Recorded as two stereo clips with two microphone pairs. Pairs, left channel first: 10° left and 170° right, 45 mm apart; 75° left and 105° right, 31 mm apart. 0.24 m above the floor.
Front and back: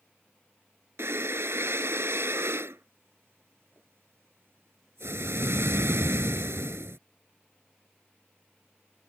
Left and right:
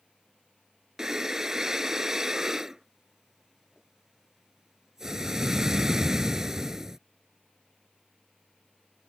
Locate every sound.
1.0 s breathing: straight behind